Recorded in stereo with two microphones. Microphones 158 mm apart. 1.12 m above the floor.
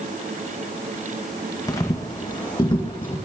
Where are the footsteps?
25° left (ahead or behind), 2 m; by 3.2 s 35° left (ahead or behind), 3 m.